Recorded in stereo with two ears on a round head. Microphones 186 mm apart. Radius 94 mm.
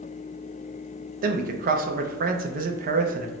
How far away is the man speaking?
About 0.5 m.